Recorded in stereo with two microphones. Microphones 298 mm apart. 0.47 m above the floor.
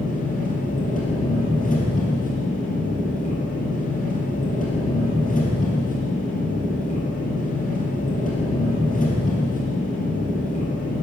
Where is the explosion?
I don't hear an explosion.